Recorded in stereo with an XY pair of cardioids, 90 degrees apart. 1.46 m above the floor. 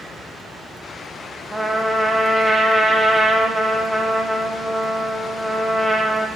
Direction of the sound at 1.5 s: 20° right.